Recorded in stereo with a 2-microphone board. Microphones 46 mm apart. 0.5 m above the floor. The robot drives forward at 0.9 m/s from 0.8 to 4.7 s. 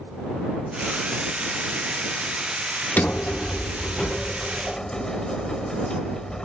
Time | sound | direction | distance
3.0 | a sliding door | 40° left (ahead or behind) | ?